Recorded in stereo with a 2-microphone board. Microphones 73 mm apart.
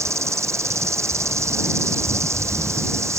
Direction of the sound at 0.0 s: 40° right (ahead or behind).